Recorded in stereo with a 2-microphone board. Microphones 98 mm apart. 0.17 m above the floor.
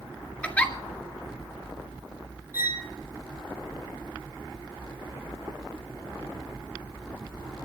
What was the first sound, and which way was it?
A giggle, 10° left (ahead or behind).